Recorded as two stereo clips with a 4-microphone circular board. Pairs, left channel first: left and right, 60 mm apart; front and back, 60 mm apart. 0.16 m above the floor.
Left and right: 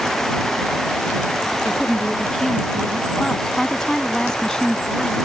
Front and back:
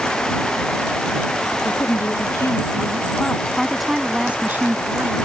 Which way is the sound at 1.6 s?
5° left.